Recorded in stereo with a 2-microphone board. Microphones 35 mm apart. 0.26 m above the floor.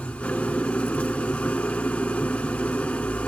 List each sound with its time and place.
0.0 s an engine running: 35° left (ahead or behind), 0.8 m